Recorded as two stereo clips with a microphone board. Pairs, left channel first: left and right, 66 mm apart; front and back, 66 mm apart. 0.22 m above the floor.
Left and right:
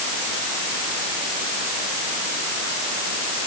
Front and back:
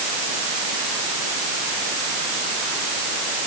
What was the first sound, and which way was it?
Only background noise.